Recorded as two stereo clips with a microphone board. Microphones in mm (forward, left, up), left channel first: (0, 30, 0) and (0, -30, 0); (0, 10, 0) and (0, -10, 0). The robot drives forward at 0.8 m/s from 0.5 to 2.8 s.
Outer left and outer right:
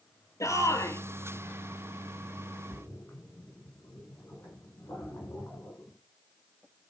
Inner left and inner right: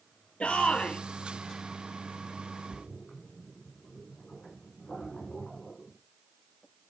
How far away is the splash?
About 6.5 m.